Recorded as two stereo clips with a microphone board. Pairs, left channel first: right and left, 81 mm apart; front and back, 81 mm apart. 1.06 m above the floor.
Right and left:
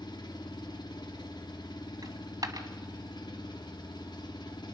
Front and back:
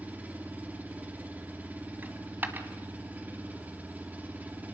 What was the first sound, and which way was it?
An engine running, 110° right.